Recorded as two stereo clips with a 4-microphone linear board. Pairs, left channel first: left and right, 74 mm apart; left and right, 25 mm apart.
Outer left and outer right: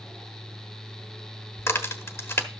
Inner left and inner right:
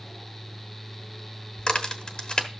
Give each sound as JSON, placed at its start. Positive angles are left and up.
{"t": 1.6, "sound": "a crack", "side_deg": 40, "distance_m": 1.3}